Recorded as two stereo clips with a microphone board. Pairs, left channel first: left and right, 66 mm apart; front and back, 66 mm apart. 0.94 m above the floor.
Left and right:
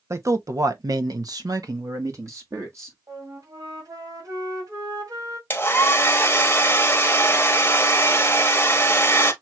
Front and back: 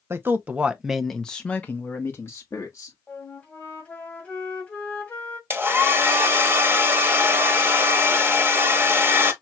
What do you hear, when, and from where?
0.1 s a man speaking: 130° right, 0.9 m; by 3.0 s 45° right, 1.7 m
3.1 s a flute: 65° right, 1.8 m
5.5 s a hair dryer: 135° left, 1.1 m